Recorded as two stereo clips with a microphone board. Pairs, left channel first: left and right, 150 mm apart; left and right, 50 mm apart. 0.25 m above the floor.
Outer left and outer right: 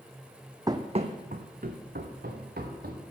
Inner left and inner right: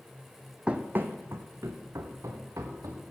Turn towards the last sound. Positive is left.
turn(degrees=-80)